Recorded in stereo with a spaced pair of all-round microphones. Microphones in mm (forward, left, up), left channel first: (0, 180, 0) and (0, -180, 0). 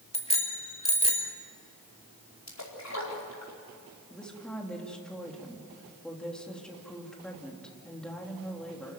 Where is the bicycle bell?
15° left (ahead or behind), 2.5 m.